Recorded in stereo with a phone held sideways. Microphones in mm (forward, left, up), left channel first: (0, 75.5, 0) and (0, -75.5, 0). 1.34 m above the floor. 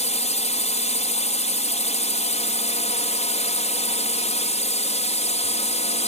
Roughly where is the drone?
Left.